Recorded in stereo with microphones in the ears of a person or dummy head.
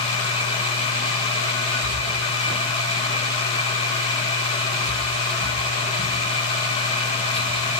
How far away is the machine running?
About 0.8 m.